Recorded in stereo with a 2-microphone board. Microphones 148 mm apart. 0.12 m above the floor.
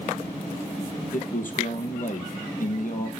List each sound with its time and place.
1.1 s a man speaking: 65° left (ahead or behind), 4 m